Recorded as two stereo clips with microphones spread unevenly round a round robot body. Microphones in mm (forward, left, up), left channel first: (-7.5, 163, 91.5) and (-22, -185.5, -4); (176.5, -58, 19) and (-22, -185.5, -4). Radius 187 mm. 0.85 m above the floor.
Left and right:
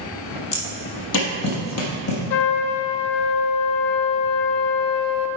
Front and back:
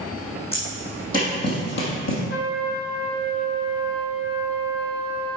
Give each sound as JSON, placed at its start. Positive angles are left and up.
{"t": 0.5, "sound": "footsteps", "azimuth_deg": 100, "distance_m": 1.7}
{"t": 2.3, "sound": "a trumpet", "azimuth_deg": 100, "distance_m": 0.7}